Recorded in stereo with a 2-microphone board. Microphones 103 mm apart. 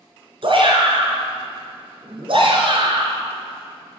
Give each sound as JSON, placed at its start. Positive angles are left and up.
{"t": 0.4, "sound": "a shout", "side_deg": -55, "distance_m": 4.5}